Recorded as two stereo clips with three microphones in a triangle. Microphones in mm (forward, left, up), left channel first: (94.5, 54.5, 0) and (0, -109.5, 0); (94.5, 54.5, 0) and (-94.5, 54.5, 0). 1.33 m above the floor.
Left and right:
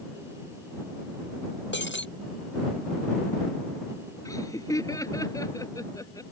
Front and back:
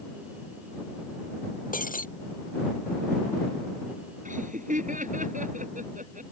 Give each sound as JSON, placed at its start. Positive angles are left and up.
{"t": 1.7, "sound": "breaking glass", "azimuth_deg": 45}
{"t": 4.2, "sound": "laughter", "azimuth_deg": 135}